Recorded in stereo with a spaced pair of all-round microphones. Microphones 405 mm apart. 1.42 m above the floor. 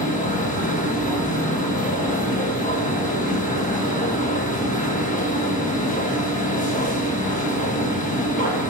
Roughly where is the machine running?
Centre.